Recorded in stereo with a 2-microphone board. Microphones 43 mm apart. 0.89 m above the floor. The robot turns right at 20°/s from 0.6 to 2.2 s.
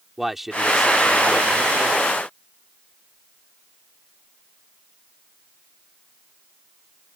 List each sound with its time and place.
0.2 s a man speaking: 5° right; by 2.1 s 25° left